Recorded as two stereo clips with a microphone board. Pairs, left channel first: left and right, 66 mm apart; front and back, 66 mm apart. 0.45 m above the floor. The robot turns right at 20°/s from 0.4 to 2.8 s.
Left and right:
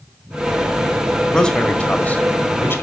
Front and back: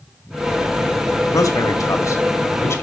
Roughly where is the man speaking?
Ahead.